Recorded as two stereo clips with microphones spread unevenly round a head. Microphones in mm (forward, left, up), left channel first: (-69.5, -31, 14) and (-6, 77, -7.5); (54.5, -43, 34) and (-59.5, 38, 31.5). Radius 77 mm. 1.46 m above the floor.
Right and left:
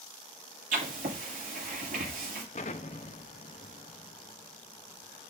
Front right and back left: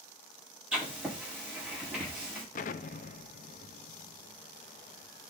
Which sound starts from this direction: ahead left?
Writing, at 0.7 s.